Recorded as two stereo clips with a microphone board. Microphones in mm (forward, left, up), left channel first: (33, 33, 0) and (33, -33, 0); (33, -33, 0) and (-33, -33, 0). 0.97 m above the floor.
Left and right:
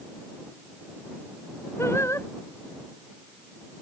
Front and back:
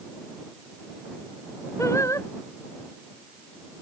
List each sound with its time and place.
1.8 s singing: 40° left